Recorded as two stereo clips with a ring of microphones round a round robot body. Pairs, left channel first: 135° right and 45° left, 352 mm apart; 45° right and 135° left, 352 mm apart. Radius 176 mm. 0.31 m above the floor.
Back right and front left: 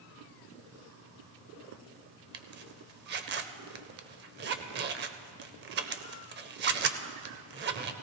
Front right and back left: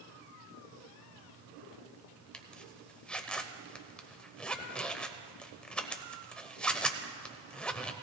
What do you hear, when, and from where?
2.3 s a zipper: 40° left, 0.6 m